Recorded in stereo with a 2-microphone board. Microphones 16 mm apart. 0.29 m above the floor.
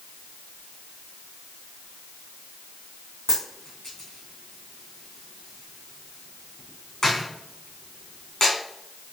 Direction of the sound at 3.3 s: 30° left (ahead or behind).